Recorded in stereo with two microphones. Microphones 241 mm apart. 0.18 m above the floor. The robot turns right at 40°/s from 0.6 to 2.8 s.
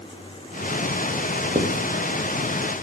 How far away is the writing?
About 4 m.